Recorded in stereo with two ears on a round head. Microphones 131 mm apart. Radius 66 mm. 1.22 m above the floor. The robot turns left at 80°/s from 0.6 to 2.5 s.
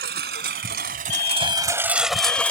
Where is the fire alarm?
115° left; by 2.5 s straight ahead.